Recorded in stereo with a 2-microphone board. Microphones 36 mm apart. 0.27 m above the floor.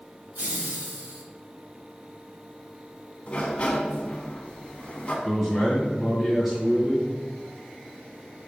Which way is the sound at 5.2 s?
10° right (ahead or behind).